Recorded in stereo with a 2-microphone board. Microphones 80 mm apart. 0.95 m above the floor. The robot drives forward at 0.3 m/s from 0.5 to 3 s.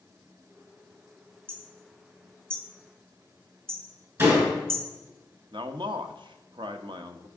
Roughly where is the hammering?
Right.